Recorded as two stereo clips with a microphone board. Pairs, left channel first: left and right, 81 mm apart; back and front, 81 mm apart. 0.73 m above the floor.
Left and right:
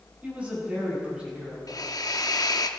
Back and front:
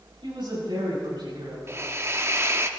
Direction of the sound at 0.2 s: 20° right.